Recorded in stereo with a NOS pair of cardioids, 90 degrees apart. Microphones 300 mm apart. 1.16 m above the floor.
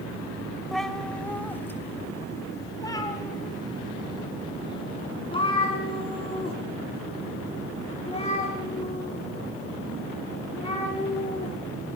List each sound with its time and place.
0.7 s a cat meowing: straight ahead, 2 m; by 11.5 s 20° left, 10 m